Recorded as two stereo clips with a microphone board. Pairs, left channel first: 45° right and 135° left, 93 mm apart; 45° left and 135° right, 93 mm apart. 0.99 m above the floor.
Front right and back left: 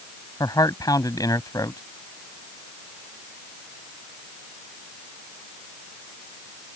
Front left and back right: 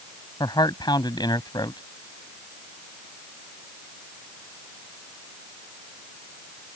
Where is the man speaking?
5° left.